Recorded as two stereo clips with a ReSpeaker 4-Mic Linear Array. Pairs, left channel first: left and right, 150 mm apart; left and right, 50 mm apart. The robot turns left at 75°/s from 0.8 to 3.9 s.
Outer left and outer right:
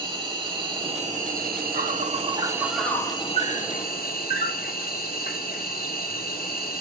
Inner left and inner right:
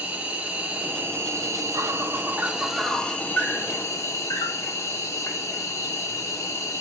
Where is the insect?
35° right, 1.8 m; by 6.8 s 95° left, 1.8 m.